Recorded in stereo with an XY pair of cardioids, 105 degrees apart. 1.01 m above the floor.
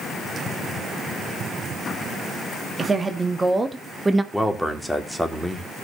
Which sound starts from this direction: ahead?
A man speaking, at 4.3 s.